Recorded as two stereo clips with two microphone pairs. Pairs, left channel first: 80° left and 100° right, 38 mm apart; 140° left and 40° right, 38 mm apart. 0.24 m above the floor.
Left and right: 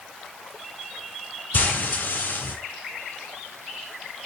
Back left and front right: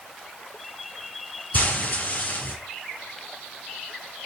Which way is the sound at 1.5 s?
100° left.